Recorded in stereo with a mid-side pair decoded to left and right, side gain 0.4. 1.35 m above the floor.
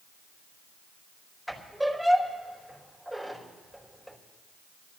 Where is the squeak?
10° right, 4 m.